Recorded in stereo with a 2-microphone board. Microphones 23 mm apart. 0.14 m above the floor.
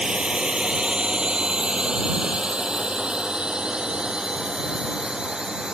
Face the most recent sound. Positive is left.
turn(degrees=-35)  # may be behind; listen again after turning